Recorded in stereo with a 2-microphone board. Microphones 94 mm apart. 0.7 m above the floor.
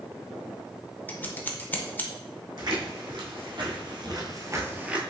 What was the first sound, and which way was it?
Scissors, 20° left (ahead or behind).